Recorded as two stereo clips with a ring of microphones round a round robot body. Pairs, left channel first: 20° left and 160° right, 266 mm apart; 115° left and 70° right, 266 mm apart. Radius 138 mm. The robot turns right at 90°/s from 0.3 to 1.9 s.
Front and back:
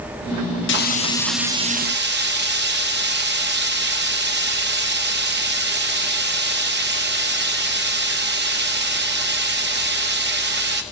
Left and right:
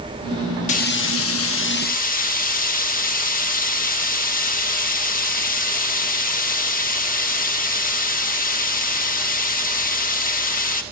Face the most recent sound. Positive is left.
turn(degrees=165)